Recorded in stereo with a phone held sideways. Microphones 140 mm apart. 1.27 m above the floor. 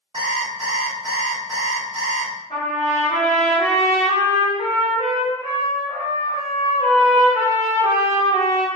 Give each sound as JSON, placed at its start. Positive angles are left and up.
{"t": 0.1, "sound": "an alarm clock", "side_deg": -45, "distance_m": 1.1}
{"t": 2.5, "sound": "a trumpet", "side_deg": 55, "distance_m": 1.2}